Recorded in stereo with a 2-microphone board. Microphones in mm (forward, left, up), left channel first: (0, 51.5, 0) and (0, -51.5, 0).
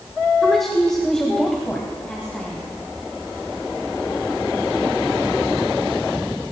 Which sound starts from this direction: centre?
A woman speaking, at 0.4 s.